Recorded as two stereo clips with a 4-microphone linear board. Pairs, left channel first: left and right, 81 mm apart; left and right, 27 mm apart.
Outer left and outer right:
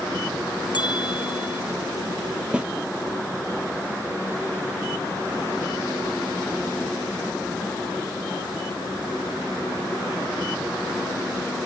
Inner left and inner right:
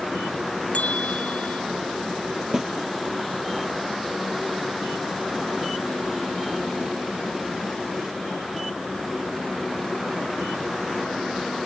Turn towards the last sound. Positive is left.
turn(degrees=-15)  # may be behind; listen again after turning